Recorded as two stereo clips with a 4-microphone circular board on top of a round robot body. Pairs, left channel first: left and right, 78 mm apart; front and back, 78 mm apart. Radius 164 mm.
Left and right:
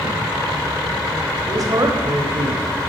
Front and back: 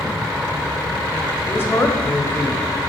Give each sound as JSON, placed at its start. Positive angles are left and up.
{"t": 1.4, "sound": "a woman speaking", "azimuth_deg": -60, "distance_m": 1.4}